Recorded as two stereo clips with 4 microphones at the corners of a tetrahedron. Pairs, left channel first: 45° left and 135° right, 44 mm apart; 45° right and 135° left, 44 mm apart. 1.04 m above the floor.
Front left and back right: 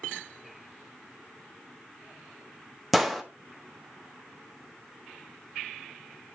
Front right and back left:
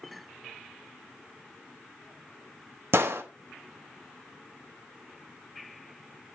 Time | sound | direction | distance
2.9 | a gunshot | 135° left | 1.2 m